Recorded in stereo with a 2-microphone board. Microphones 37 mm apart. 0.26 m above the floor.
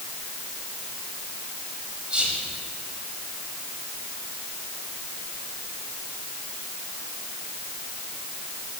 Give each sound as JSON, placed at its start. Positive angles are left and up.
{"t": 2.1, "sound": "whispering", "side_deg": -25, "distance_m": 1.4}